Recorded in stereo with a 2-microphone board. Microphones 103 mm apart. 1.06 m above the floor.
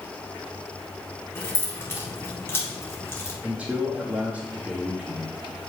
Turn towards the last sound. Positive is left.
turn(degrees=-15)  # may be behind; listen again after turning